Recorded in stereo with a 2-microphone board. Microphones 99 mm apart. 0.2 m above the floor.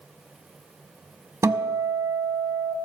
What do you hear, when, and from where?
1.4 s a guitar: 30° right (ahead or behind), 0.8 m